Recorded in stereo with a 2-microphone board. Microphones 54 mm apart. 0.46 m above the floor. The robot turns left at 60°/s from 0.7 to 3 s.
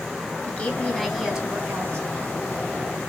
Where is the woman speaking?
25° left, 3 m; by 2.1 s 60° right, 3 m.